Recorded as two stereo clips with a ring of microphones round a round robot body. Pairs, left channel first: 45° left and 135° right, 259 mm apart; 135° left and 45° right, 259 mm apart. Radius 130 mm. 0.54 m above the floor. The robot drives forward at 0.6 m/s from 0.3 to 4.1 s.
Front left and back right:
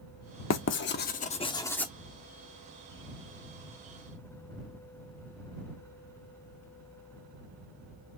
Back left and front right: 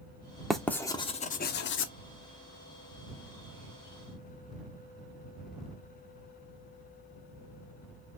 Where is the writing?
45° left, 0.9 m; by 1.9 s 130° left, 0.8 m.